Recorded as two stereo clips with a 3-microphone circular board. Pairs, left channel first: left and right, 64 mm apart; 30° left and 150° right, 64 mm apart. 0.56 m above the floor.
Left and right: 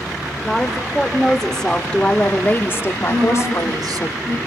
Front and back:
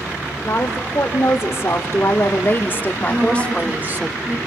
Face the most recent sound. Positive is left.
turn(degrees=-85)